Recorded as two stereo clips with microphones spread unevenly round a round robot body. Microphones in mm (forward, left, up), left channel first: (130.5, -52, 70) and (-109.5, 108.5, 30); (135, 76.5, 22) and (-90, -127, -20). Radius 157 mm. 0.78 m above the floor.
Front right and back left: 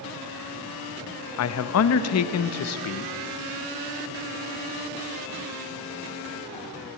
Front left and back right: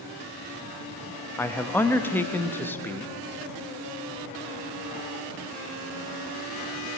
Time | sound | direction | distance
1.4 | a man speaking | 50° right | 0.5 m